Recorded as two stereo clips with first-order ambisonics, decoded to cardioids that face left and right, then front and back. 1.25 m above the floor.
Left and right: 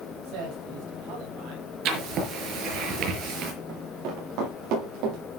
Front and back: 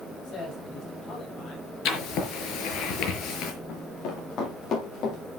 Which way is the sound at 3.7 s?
50° right.